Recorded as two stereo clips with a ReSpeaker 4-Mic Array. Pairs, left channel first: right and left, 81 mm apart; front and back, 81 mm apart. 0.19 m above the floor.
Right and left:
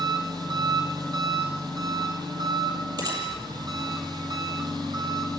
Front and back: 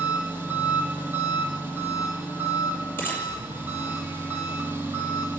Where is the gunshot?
65° left, 7 m.